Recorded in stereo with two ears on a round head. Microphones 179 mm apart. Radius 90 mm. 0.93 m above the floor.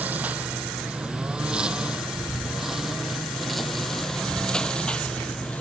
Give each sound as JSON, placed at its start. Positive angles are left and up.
{"t": 0.0, "sound": "a lawn mower", "side_deg": -10}